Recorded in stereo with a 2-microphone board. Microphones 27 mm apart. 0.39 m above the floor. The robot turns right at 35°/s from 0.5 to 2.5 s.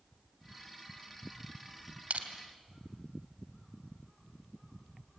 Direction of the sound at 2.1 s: 65° right (ahead or behind).